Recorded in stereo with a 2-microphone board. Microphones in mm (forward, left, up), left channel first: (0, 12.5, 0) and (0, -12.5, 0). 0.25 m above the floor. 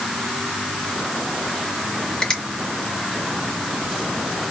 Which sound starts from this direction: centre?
A finger snap, at 2.2 s.